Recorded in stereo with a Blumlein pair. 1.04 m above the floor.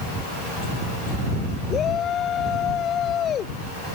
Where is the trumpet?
No trumpet in this recording.